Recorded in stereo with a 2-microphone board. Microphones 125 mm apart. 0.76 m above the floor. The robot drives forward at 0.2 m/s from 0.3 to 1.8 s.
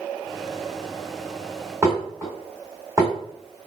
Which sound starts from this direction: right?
Dishes clattering, at 1.8 s.